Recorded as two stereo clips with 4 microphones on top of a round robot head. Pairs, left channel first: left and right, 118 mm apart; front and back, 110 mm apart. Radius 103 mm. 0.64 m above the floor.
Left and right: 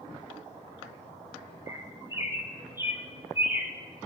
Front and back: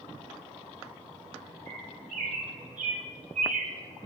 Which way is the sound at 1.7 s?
155° right.